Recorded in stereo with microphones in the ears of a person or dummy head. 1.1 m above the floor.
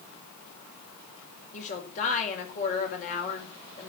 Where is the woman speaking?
50° left (ahead or behind), 4.5 m.